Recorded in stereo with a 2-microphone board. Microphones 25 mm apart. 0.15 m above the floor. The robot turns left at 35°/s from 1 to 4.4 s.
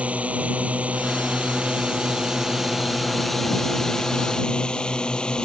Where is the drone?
100° right; by 5.5 s 140° left.